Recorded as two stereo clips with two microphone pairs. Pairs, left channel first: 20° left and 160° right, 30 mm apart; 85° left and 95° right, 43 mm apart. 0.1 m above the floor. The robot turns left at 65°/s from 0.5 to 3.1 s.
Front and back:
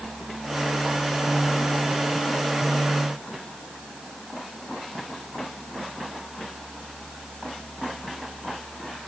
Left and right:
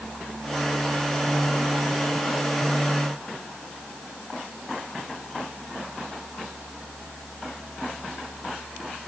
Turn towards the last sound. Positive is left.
No sound to turn to.